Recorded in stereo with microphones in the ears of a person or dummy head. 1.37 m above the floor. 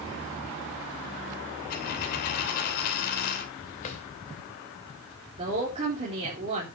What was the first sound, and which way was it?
A dropped coin, 55° left (ahead or behind).